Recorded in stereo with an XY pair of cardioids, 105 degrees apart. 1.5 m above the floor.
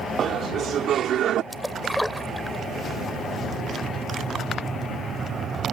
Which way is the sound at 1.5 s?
5° left.